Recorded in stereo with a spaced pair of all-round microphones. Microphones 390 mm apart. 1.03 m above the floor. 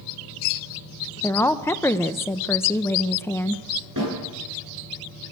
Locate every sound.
1.2 s a woman speaking: 5° left (ahead or behind), 0.7 m
4.0 s a snare drum: 55° right (ahead or behind), 10 m